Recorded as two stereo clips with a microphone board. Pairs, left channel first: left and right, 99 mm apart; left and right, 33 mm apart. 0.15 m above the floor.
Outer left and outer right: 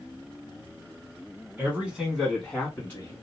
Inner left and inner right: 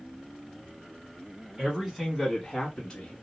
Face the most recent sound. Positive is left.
turn(degrees=25)  # may be behind; listen again after turning